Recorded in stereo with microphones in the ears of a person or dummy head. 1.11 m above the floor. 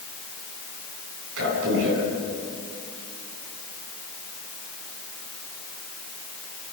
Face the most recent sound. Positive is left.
turn(degrees=-70)  # may be behind; listen again after turning